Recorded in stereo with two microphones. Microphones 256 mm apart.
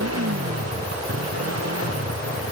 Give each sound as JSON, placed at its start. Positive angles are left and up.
{"t": 0.0, "sound": "a motorcycle", "side_deg": -75}